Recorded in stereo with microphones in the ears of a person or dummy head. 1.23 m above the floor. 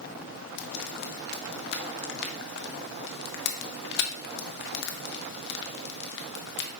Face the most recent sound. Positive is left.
turn(degrees=60)  # may be behind; listen again after turning